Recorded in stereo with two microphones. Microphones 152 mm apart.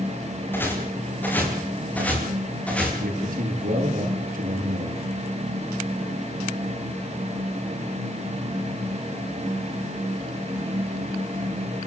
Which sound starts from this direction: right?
A man speaking, at 3.0 s.